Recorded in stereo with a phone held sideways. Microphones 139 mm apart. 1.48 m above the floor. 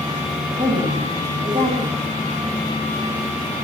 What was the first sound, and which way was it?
A woman speaking, 65° right (ahead or behind).